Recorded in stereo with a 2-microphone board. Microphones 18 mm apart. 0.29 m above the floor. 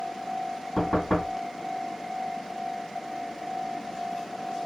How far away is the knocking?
About 1.9 m.